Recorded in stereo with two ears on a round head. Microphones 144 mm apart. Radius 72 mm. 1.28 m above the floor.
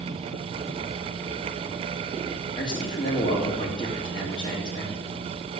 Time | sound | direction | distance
2.5 | a man speaking | 30° left (ahead or behind) | 2.0 m